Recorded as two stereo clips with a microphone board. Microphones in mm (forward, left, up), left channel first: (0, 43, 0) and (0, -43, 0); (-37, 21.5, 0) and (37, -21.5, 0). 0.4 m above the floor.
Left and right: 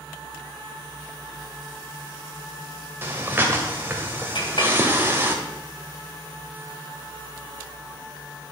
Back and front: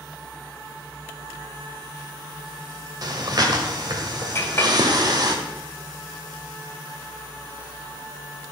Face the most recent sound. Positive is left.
turn(degrees=90)